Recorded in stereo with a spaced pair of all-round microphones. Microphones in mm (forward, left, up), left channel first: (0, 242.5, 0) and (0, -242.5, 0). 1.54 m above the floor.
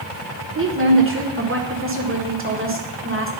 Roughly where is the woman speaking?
Right.